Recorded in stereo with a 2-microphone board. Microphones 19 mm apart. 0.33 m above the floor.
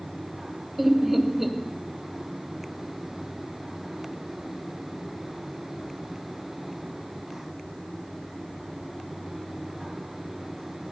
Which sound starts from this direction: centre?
Laughter, at 0.8 s.